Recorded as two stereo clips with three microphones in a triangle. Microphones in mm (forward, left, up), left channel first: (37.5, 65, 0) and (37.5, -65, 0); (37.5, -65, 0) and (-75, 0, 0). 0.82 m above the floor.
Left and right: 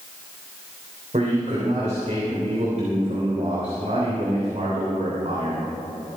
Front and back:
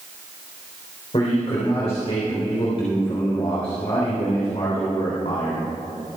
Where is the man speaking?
70° right, 3.5 m.